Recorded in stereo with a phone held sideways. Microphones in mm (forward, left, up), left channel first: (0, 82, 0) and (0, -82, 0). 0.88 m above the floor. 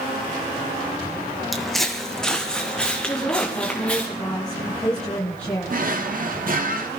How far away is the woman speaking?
About 9.5 m.